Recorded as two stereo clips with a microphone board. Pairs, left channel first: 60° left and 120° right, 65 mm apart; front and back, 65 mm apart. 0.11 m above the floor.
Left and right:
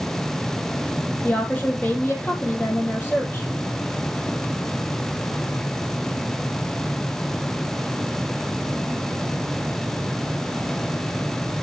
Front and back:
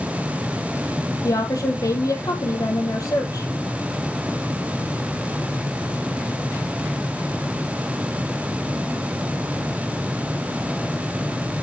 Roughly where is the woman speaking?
Ahead.